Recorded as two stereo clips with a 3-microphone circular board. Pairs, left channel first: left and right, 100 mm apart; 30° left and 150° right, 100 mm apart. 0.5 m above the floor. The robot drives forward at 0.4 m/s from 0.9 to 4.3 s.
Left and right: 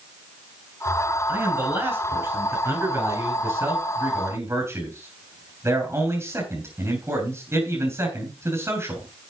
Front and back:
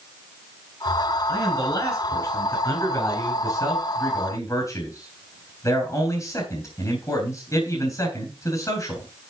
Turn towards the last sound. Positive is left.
turn(degrees=-30)